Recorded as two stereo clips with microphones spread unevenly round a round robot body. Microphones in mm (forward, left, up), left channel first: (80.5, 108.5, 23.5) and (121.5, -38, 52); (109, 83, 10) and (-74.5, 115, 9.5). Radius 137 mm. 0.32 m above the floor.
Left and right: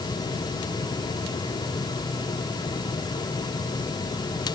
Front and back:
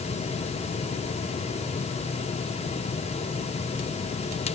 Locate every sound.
Only background noise.